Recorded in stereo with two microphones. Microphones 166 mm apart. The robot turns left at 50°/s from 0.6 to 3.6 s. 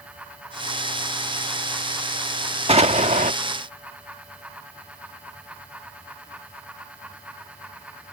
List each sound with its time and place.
2.7 s an explosion: 55° right; by 3.3 s 85° right